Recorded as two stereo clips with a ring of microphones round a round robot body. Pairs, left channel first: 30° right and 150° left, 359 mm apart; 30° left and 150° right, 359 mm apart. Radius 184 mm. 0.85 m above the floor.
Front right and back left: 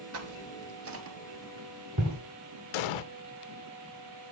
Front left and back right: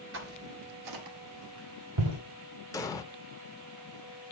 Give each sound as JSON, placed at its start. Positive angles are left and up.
{"t": 0.1, "sound": "footsteps", "azimuth_deg": 170, "distance_m": 0.9}
{"t": 2.7, "sound": "an explosion", "azimuth_deg": -50, "distance_m": 0.6}